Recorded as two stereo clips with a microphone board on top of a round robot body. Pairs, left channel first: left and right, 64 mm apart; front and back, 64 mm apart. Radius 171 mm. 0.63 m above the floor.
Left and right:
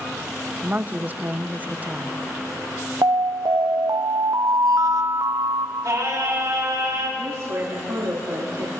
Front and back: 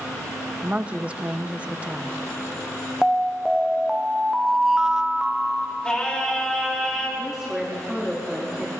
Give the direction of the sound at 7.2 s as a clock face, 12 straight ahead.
3 o'clock.